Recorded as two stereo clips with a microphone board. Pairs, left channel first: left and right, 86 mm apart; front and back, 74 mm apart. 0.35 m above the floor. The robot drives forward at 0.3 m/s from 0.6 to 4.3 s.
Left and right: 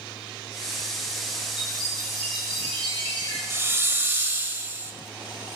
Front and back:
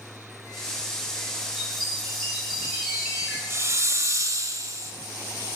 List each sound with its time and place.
1.6 s a chime: 90° left, 7.5 m; by 3.4 s 95° left, 7.5 m
3.5 s a hiss: 140° right, 1.1 m; by 4.9 s 150° right, 1.2 m